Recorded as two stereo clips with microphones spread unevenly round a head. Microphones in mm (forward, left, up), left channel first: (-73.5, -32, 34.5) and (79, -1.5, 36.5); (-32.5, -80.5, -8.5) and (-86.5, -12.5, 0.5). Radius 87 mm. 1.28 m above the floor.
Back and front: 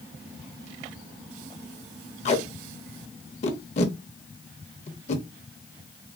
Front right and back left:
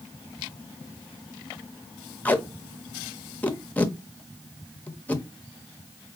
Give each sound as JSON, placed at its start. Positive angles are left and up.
{"t": 2.2, "sound": "tape being pulled", "azimuth_deg": -125, "distance_m": 0.7}